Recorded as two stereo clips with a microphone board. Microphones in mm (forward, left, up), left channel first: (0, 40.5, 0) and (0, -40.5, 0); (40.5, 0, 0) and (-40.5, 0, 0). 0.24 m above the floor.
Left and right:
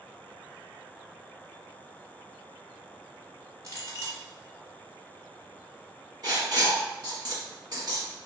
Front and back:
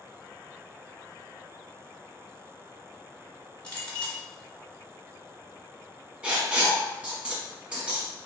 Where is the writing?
105° right, 1.1 m.